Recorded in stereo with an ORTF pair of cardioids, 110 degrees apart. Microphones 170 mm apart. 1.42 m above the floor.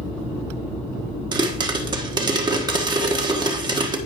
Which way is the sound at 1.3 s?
25° right.